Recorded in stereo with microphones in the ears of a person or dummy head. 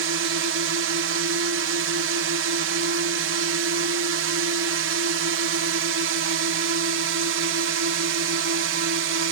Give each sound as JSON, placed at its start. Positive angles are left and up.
{"t": 0.0, "sound": "a drone", "side_deg": -70}